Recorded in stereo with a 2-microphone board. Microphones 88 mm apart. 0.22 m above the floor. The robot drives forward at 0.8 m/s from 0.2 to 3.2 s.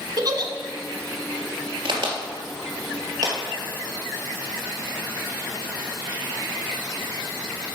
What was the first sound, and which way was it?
A giggle, 55° right (ahead or behind).